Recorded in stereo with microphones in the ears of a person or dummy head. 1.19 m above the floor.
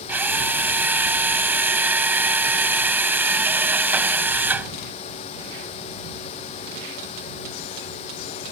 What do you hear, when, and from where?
0.1 s a drill: 15° right (ahead or behind)